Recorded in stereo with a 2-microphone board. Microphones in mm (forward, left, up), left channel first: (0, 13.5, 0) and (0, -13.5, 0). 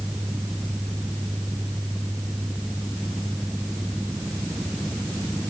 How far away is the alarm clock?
No alarm clock in this recording.